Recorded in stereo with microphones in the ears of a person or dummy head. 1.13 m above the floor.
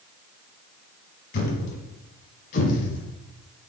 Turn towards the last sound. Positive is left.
turn(degrees=50)  # may be behind; listen again after turning